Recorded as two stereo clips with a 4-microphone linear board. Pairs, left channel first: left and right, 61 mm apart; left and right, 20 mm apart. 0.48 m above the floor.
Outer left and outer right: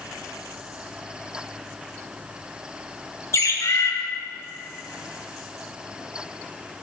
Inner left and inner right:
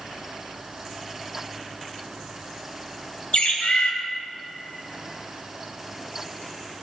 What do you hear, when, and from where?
3.3 s a bird: 55° left (ahead or behind), 1.2 m